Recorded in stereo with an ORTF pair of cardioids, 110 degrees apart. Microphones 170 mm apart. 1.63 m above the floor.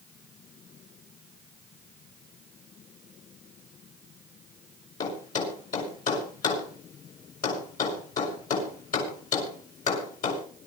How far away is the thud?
About 6 m.